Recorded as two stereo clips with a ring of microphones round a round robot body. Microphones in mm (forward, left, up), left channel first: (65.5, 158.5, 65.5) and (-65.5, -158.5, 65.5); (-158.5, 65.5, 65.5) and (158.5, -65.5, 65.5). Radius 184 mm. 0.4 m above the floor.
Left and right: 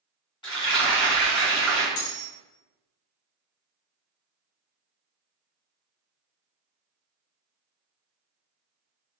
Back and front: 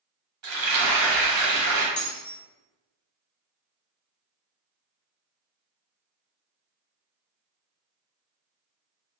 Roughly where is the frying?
Ahead.